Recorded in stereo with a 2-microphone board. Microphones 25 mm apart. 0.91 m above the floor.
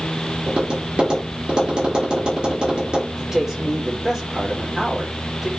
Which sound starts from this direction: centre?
A man speaking, at 3.2 s.